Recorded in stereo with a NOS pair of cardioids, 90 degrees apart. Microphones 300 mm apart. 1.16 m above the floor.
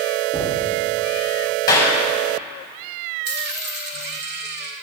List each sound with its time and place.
0.3 s knocking: 5° right, 1.6 m
1.7 s a clap: 15° left, 5 m
3.2 s a dropped coin: 35° right, 2 m